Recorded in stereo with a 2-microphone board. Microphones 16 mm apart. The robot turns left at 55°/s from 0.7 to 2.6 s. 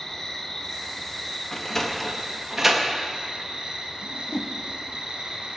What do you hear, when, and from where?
0.0 s an insect: 40° left, 2 m; by 5.6 s 65° right, 2 m
1.5 s a sliding door: 35° left (ahead or behind), 1.3 m; by 2.9 s 15° right (ahead or behind), 1.3 m
4.0 s a whoosh: 40° left (ahead or behind), 0.9 m